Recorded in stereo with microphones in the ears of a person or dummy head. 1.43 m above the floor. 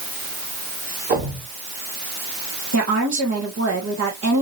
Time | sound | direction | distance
1.1 | a thud | 50° right (ahead or behind) | 2.5 m
2.7 | a woman speaking | 70° right (ahead or behind) | 1.9 m